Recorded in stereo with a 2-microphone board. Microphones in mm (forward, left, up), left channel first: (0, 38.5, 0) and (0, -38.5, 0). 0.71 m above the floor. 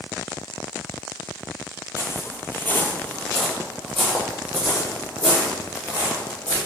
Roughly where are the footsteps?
Left.